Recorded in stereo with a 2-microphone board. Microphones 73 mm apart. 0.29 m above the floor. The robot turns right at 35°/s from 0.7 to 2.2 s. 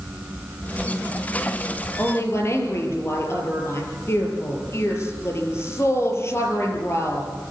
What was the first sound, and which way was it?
A woman speaking, 30° left (ahead or behind).